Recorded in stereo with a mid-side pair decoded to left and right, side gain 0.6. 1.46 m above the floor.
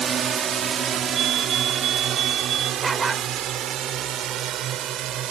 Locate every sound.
0.0 s a drone: 40° right; by 5.3 s 60° right
1.1 s a fire alarm: 55° right
2.8 s a dog barking: 30° right